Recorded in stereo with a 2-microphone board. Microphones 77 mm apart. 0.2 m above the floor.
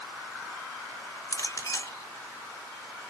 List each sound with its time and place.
1.3 s a clink: 45° left (ahead or behind), 1.7 m